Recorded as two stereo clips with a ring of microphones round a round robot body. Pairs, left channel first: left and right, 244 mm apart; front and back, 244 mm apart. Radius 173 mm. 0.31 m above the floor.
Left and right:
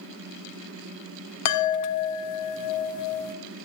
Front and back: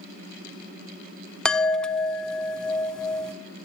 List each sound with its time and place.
1.4 s a chime: 85° left, 0.7 m